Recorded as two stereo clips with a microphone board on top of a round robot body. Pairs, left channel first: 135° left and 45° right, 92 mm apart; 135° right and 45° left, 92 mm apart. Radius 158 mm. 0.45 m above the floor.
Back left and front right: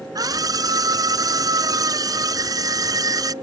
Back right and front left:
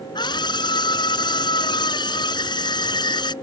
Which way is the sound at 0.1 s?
95° right.